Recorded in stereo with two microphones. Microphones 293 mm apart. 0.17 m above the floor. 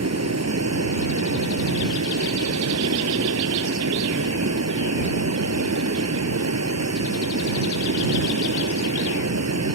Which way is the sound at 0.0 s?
55° right (ahead or behind).